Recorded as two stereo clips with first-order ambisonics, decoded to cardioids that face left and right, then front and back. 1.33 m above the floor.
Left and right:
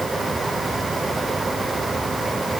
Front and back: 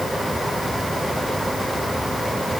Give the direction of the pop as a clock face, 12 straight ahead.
I don't hear a pop.